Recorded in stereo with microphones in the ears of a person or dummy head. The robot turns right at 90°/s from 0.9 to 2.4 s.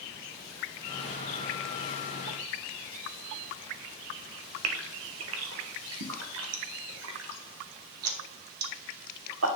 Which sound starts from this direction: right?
A gasp, at 4.6 s.